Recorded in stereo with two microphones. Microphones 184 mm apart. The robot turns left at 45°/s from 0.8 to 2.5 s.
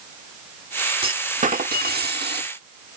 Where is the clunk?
35° right; by 2.5 s 100° right.